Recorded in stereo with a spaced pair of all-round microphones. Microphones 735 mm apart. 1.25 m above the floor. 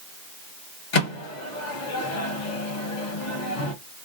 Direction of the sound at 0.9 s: 70° left (ahead or behind).